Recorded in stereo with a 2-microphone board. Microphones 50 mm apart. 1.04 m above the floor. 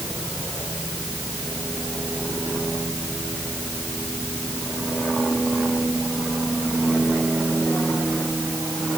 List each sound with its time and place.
Only background noise.